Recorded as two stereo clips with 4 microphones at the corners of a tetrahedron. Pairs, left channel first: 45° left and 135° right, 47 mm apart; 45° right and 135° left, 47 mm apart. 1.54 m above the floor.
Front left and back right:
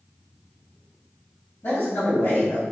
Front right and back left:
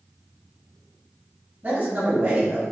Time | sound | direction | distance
1.6 | a man speaking | 80° left | 1.8 m